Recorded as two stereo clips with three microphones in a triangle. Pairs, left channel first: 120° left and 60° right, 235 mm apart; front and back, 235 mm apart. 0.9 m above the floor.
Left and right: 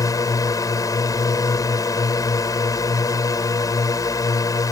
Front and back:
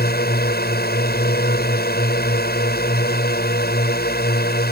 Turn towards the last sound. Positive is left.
turn(degrees=45)